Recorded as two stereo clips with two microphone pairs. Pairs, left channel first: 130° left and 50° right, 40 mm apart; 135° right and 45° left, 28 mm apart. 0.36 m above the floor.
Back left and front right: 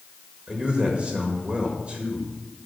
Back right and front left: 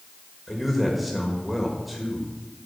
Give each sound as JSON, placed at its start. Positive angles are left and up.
{"t": 0.5, "sound": "a man speaking", "azimuth_deg": -40, "distance_m": 1.4}